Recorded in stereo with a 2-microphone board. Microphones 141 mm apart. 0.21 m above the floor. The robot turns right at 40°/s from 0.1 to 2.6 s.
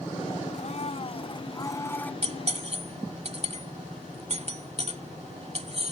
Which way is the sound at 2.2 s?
45° right (ahead or behind).